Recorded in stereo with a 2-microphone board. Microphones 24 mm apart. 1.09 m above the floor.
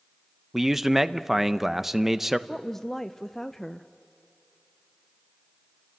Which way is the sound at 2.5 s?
10° left (ahead or behind).